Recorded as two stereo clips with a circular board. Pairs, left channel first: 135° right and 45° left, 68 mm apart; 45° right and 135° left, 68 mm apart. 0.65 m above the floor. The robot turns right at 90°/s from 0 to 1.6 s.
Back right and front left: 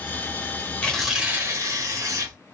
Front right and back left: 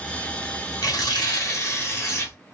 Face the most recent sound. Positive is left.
turn(degrees=5)